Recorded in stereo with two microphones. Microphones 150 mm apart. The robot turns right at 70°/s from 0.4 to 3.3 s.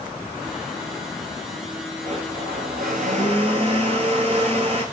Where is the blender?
135° right, 1.2 m; by 4.8 s 45° right, 1.2 m.